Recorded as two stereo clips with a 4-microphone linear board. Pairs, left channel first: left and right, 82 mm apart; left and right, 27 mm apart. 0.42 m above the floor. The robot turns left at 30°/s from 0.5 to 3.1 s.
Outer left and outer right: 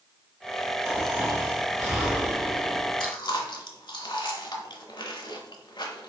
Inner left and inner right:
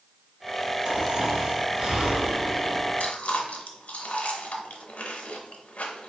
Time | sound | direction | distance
0.8 | snoring | 45° right | 1.8 m
3.0 | chewing | 70° left (ahead or behind) | 0.8 m